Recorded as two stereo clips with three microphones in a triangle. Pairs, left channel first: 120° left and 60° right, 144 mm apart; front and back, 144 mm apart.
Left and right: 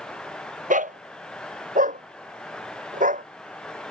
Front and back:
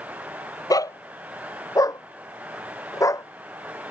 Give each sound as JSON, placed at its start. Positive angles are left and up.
{"t": 0.7, "sound": "a dog barking", "azimuth_deg": -60}